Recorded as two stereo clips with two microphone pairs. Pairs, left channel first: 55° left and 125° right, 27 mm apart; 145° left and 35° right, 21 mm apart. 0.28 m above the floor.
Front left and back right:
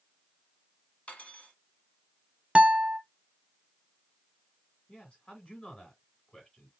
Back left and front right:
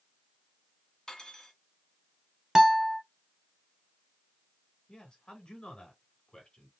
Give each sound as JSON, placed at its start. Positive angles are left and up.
{"t": 1.1, "sound": "cutlery clinking", "azimuth_deg": 90, "distance_m": 1.2}
{"t": 2.5, "sound": "a guitar", "azimuth_deg": -95, "distance_m": 0.6}
{"t": 4.9, "sound": "a man speaking", "azimuth_deg": 105, "distance_m": 3.0}